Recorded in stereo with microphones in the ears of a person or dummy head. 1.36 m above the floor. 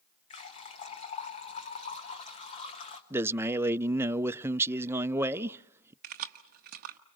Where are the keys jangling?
35° right (ahead or behind), 0.9 m.